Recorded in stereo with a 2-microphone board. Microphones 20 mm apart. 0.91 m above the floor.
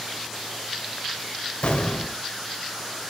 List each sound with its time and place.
1.6 s an explosion: 85° left, 2.5 m